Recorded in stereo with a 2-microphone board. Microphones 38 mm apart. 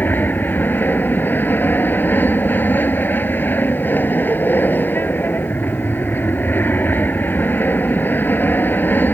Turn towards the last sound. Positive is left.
turn(degrees=60)  # may be behind; listen again after turning